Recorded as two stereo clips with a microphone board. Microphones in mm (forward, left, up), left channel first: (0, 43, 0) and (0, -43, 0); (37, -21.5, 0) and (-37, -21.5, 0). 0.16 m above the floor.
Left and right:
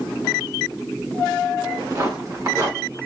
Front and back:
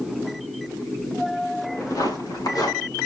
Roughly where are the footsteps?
Ahead right.